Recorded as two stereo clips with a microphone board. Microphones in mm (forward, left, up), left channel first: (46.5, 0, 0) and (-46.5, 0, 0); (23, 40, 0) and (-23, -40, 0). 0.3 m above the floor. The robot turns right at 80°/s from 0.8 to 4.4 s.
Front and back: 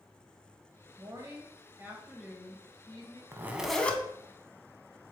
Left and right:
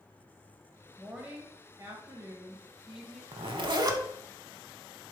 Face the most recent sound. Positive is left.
turn(degrees=-35)